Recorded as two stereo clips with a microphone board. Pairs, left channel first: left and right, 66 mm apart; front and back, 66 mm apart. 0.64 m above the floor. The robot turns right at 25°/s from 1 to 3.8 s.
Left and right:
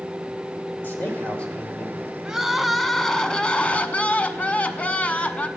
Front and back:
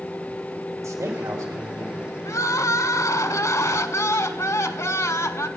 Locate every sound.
0.8 s a man speaking: 150° left, 2.5 m; by 1.9 s 170° left, 2.5 m
2.2 s crying: 10° right, 0.8 m; by 5.5 s 30° left, 0.8 m